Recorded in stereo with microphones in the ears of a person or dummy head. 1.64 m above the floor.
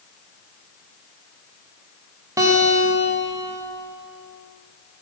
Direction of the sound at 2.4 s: 10° right (ahead or behind).